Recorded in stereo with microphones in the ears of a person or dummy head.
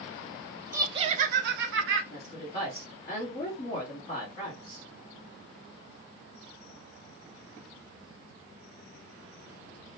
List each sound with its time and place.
0.7 s laughter: 15° right (ahead or behind), 0.5 m; by 2.0 s 75° right (ahead or behind), 0.8 m
2.1 s a woman speaking: 30° left (ahead or behind), 1.2 m